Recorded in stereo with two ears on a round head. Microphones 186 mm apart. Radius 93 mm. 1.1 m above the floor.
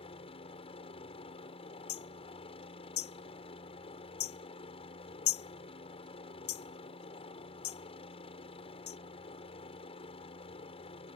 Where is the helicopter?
30° left (ahead or behind).